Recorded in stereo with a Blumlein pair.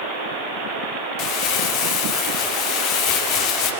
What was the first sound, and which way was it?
Crumpling, 40° left.